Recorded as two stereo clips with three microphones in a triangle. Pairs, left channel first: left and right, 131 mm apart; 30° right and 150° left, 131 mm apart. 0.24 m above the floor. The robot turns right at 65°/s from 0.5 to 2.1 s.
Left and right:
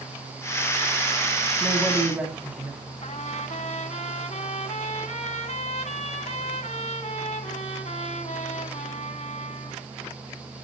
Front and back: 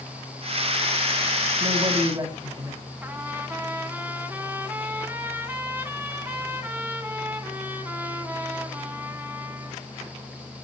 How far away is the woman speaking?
About 1.9 m.